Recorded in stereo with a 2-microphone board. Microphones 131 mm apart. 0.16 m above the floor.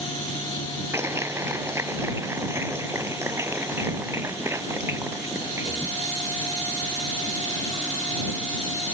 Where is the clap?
20° right (ahead or behind).